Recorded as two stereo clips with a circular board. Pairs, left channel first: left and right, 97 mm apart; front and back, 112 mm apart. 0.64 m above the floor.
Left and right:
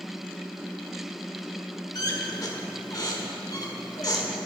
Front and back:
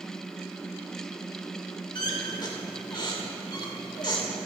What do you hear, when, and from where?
1.9 s a squeak: 45° left, 1.6 m